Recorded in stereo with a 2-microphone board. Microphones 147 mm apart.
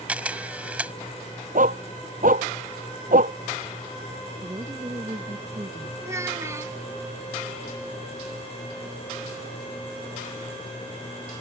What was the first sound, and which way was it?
A camera shutter, 10° right (ahead or behind).